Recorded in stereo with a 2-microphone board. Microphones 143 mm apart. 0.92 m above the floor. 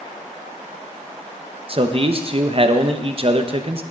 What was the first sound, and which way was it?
A man speaking, 40° right (ahead or behind).